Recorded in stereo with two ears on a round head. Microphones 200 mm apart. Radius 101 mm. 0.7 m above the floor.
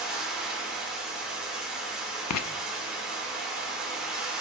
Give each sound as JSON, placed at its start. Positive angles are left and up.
{"t": 0.0, "sound": "running water", "side_deg": -5, "distance_m": 2.0}
{"t": 2.3, "sound": "writing", "side_deg": 80, "distance_m": 0.6}